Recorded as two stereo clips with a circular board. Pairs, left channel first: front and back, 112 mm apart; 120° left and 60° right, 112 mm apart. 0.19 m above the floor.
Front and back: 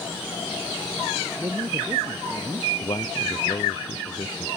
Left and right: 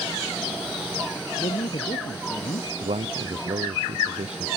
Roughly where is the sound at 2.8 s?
Ahead right.